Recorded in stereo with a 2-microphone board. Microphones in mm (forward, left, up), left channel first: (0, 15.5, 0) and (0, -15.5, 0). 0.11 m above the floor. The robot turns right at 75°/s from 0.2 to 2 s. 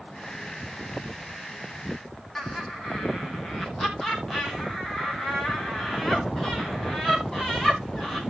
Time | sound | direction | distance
2.4 | laughter | 10° left (ahead or behind) | 4.5 m